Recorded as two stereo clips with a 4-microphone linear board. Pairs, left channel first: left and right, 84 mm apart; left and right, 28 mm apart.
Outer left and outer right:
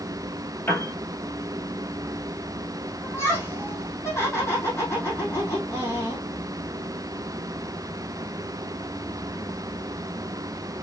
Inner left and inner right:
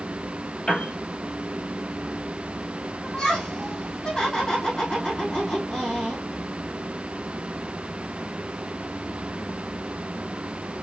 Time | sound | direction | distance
0.7 | a piano | 20° left (ahead or behind) | 3 m
3.0 | laughter | 25° left (ahead or behind) | 3.5 m